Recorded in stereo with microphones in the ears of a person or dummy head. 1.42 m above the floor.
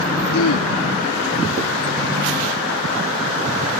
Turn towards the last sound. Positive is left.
turn(degrees=85)